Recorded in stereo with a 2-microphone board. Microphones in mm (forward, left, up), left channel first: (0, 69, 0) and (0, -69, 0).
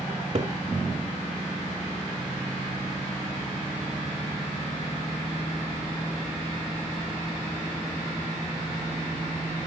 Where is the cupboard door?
50° right (ahead or behind), 2.5 m.